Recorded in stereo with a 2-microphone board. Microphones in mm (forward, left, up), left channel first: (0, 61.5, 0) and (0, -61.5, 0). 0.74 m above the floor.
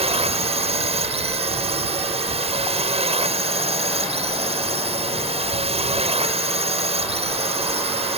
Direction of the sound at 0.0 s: 50° right (ahead or behind).